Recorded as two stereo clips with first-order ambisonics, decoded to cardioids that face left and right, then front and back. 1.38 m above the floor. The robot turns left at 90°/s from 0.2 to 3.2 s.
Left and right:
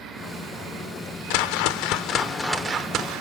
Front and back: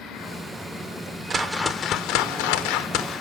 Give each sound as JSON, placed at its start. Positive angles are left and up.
{"t": 1.3, "sound": "a whoosh", "azimuth_deg": 110, "distance_m": 0.6}